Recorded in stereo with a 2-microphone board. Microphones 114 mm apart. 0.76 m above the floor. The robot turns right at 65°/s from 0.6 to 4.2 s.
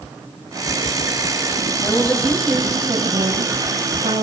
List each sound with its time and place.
1.8 s a woman speaking: 140° left, 4 m; by 4.2 s 60° right, 4 m